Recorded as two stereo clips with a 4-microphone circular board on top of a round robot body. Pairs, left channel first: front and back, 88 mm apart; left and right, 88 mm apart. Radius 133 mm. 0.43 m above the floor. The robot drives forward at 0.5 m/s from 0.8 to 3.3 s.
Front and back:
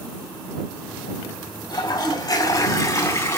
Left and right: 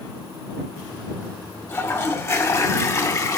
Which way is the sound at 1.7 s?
35° left.